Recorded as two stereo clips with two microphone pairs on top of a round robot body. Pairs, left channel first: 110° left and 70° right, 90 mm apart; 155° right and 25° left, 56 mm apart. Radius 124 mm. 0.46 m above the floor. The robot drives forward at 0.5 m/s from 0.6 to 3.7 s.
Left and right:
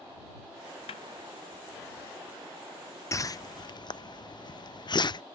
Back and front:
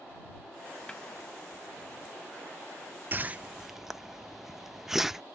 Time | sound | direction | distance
0.9 | a snare drum | 130° left | 0.5 m
3.1 | a whoosh | 65° left | 0.6 m